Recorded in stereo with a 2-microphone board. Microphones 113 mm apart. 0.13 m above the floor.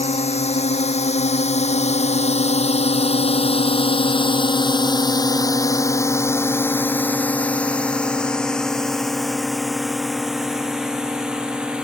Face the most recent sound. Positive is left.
turn(degrees=-10)  # may be behind; listen again after turning